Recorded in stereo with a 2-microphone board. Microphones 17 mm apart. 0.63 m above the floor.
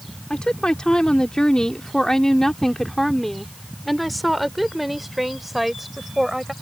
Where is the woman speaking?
60° left (ahead or behind); by 6.5 s 20° right (ahead or behind).